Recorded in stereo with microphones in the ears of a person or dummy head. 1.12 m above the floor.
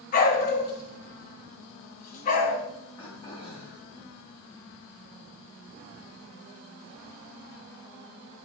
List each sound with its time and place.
0.1 s a dog barking: 45° left (ahead or behind), 1.5 m
3.0 s throat clearing: 30° left (ahead or behind), 2.5 m